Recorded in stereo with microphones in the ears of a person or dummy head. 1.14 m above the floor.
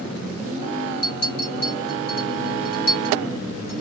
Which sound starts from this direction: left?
A clink, at 1.0 s.